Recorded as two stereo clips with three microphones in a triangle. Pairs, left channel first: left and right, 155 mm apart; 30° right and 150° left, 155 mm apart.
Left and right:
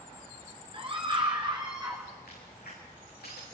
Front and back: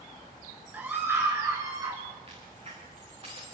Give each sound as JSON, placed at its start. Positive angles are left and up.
{"t": 0.7, "sound": "a scream", "azimuth_deg": -130, "distance_m": 2.5}
{"t": 2.3, "sound": "a crack", "azimuth_deg": 100, "distance_m": 9.0}